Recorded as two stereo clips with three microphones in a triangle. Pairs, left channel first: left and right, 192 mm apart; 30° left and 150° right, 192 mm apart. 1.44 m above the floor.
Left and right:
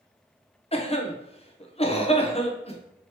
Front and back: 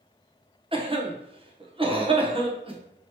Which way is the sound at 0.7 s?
150° left.